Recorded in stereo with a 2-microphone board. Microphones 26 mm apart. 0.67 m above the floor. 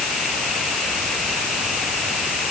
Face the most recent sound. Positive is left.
No sound to turn to.